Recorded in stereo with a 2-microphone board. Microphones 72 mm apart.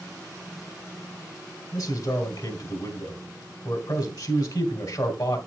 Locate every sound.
1.7 s a man speaking: 65° left (ahead or behind), 2.5 m